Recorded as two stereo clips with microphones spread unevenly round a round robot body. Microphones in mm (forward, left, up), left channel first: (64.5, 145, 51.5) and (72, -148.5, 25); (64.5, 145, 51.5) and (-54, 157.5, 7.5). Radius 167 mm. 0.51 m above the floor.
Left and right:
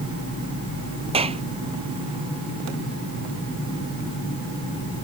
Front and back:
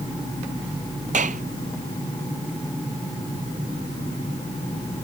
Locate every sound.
1.1 s a clap: 160° right